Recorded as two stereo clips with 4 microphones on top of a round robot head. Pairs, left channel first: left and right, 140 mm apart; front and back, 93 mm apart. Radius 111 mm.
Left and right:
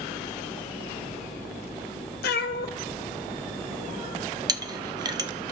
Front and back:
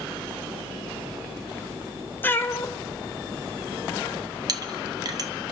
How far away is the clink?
About 0.7 m.